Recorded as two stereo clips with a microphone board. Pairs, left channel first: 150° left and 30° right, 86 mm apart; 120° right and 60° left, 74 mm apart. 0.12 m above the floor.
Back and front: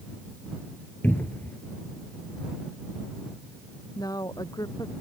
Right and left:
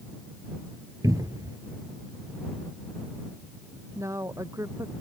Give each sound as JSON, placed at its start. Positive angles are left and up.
{"t": 1.0, "sound": "a cupboard door", "azimuth_deg": 85}
{"t": 4.0, "sound": "a woman speaking", "azimuth_deg": 110}